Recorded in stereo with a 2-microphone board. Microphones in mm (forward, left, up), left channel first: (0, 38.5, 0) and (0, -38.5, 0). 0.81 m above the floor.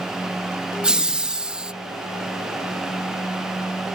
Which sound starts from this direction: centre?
Laughter, at 0.8 s.